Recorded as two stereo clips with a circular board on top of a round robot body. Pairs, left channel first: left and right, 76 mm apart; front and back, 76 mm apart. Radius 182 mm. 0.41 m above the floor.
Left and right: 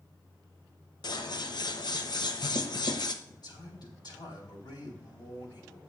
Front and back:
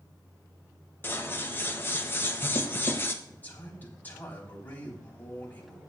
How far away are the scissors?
About 1.2 m.